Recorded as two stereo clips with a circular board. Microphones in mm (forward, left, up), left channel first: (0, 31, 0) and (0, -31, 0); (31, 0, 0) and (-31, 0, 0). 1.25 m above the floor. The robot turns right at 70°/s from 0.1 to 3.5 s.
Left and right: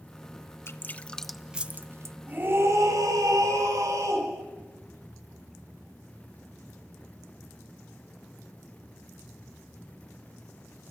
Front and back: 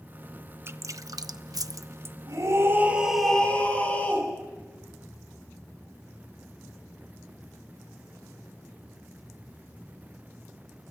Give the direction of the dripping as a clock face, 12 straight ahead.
8 o'clock.